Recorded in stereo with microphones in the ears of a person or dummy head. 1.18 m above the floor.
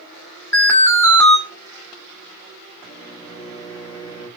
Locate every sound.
0.5 s an alarm: 15° left (ahead or behind), 2 m
2.8 s a microwave: 15° right (ahead or behind), 4.5 m